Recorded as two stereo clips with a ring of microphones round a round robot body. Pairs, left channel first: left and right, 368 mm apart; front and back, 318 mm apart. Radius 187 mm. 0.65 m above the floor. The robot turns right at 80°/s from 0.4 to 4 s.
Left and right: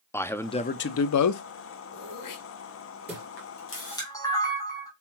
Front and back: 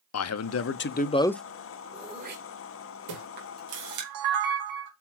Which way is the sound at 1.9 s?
90° left.